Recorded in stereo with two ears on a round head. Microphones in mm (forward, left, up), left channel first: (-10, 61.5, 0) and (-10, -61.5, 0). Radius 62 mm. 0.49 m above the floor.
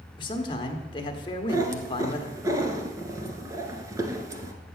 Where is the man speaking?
35° left (ahead or behind), 1.2 m.